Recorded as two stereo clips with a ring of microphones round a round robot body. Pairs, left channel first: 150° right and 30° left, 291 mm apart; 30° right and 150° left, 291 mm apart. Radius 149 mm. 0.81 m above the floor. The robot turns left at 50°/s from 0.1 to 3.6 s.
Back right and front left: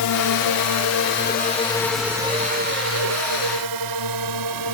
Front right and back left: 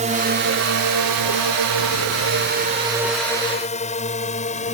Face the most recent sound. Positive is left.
turn(degrees=35)